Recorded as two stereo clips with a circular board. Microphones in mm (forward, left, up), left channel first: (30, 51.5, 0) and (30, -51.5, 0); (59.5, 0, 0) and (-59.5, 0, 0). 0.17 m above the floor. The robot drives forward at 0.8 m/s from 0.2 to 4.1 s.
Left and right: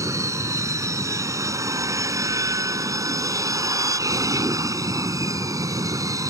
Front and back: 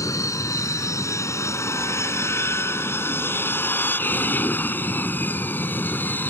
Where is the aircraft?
45° right; by 6.3 s 65° right.